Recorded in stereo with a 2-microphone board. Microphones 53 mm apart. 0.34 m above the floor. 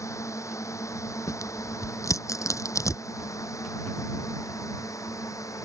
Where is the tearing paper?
75° left (ahead or behind).